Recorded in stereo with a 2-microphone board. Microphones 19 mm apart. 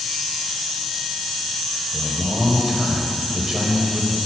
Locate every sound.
1.9 s a man speaking: 25° right (ahead or behind), 0.9 m